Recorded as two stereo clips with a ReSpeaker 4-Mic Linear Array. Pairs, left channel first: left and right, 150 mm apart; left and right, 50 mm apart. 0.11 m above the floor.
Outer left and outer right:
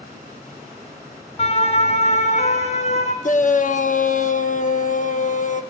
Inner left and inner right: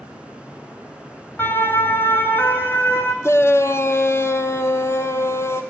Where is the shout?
60° left (ahead or behind), 3.5 m.